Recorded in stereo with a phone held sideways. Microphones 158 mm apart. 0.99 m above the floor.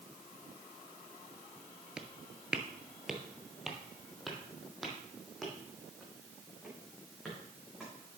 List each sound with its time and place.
2.0 s footsteps: 5° right (ahead or behind), 1.0 m; by 7.9 s centre (ahead or behind), 5 m